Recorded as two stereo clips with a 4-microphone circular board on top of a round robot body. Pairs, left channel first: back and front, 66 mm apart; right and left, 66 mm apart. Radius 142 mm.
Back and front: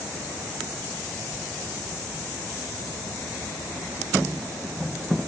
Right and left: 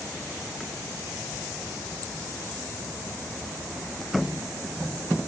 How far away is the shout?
I don't hear a shout.